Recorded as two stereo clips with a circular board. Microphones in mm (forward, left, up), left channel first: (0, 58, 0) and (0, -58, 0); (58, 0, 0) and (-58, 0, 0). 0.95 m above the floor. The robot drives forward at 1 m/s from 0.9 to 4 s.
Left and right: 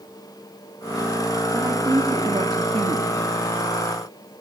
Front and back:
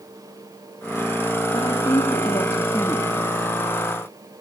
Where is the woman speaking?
35° right, 2.5 m; by 4.4 s 115° right, 1.5 m.